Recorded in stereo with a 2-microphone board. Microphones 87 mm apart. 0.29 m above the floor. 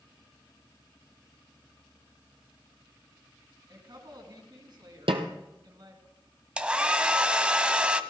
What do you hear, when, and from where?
3.7 s a woman speaking: 55° right (ahead or behind), 3.5 m
5.1 s a snare drum: 85° right, 1.4 m
6.6 s a hair dryer: 10° right (ahead or behind), 0.7 m